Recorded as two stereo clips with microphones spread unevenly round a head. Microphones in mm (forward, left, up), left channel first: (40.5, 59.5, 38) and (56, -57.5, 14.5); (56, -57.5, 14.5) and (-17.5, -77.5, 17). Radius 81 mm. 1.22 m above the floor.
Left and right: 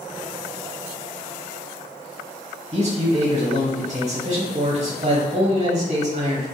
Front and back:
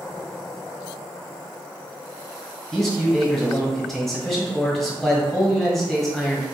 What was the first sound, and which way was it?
A man speaking, 70° right.